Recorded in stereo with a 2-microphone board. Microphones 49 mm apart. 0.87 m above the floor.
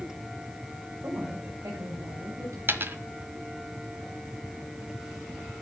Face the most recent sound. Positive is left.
turn(degrees=-45)  # may be behind; listen again after turning